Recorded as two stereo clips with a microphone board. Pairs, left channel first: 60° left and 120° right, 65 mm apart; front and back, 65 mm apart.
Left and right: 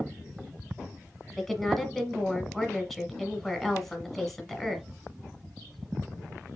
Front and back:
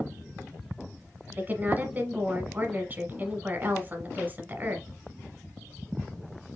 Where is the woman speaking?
145° left, 1.2 m.